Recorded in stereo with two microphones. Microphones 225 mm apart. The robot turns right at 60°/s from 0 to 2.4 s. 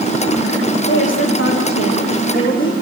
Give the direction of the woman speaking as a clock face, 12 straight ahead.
10 o'clock.